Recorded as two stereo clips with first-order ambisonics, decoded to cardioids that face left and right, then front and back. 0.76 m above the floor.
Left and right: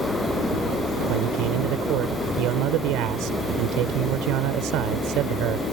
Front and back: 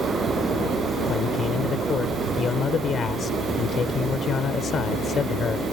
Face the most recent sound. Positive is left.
turn(degrees=-65)